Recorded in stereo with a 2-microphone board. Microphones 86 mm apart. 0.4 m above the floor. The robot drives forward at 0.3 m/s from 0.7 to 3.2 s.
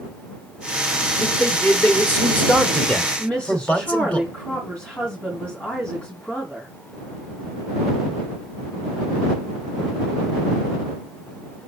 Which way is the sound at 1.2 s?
20° left (ahead or behind).